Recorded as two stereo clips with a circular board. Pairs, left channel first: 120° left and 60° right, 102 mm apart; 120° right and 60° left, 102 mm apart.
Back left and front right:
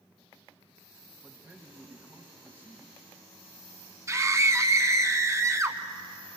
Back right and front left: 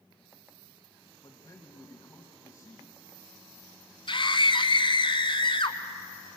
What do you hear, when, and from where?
1.2 s a man speaking: 110° right, 1.8 m
4.1 s a scream: 115° right, 1.8 m